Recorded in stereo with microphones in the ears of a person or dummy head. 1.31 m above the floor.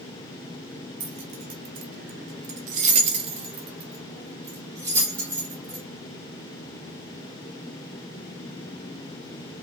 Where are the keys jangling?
35° right (ahead or behind), 0.8 m; by 5.8 s 15° right (ahead or behind), 2 m.